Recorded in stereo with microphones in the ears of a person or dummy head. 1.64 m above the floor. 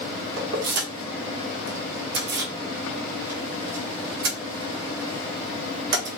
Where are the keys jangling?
60° right (ahead or behind), 1.1 m.